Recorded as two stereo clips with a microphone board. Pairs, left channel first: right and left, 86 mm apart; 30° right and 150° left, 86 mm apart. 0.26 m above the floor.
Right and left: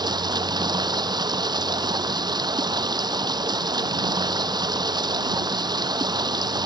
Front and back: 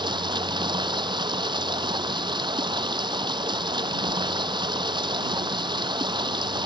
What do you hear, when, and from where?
0.0 s running water: 125° left